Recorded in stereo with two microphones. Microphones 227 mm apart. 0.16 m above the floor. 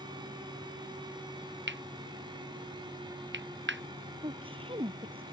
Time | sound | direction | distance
1.7 | cutlery clinking | 55° right (ahead or behind) | ?
4.2 | a woman speaking | 25° right (ahead or behind) | ?